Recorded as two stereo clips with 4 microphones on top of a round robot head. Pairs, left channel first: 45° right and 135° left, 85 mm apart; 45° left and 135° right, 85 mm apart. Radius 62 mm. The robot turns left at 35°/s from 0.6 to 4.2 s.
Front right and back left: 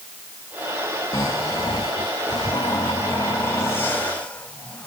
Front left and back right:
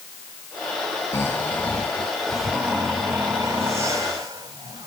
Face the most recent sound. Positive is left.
turn(degrees=-115)